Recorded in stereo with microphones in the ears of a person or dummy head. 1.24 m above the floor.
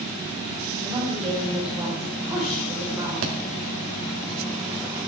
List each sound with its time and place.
0.8 s a woman speaking: 10° right (ahead or behind), 4.5 m
3.2 s a thud: 45° right (ahead or behind), 1.3 m